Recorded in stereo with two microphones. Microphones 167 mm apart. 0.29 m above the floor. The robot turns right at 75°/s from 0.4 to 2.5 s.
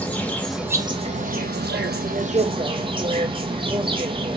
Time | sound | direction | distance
0.0 | an insect | 170° left | 0.8 m